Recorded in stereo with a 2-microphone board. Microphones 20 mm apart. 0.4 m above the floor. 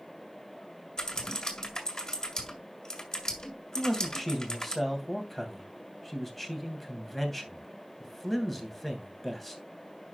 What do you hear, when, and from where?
1.0 s typing on a keyboard: 40° left (ahead or behind), 2 m
3.8 s a man speaking: 15° left (ahead or behind), 3 m